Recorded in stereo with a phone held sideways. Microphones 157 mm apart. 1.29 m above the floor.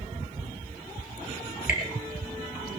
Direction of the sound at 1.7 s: 60° left (ahead or behind).